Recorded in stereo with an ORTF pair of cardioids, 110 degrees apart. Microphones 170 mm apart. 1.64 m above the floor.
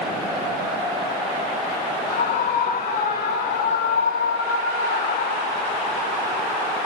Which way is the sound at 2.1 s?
65° left.